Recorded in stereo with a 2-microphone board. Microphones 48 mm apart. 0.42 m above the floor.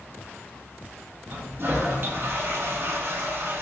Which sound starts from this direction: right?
A toilet flushing, at 1.3 s.